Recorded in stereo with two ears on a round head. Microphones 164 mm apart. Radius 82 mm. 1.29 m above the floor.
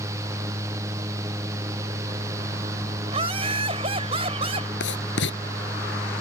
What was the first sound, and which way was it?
Laughter, 30° right (ahead or behind).